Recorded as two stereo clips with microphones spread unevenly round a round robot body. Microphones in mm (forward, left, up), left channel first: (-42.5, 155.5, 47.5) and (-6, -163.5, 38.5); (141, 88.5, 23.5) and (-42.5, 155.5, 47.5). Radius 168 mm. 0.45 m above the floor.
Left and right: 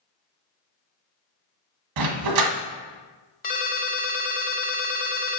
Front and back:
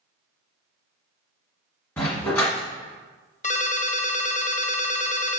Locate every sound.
2.0 s a dog barking: 105° right, 1.3 m
3.4 s a ringtone: 30° left, 1.0 m